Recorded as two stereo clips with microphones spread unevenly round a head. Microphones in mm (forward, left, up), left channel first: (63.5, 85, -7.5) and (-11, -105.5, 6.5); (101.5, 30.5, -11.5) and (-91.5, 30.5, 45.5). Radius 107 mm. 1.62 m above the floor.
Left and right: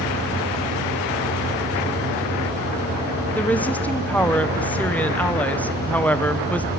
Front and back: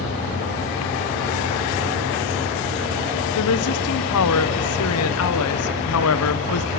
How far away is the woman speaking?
About 1.0 m.